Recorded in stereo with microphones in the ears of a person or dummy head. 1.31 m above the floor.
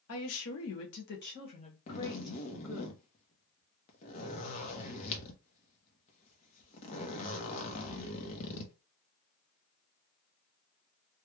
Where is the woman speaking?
70° left (ahead or behind), 1.0 m; by 2.9 s 15° left (ahead or behind), 1.4 m.